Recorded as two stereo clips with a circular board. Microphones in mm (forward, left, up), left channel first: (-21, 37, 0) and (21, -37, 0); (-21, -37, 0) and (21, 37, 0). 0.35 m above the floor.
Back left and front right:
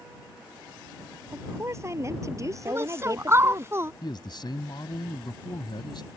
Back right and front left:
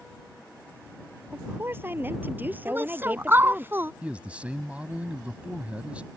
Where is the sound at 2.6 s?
Straight ahead.